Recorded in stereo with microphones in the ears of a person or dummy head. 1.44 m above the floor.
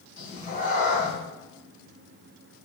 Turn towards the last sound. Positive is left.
turn(degrees=45)  # may be behind; listen again after turning